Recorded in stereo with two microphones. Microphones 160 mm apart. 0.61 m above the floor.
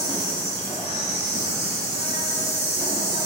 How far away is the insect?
About 1.8 m.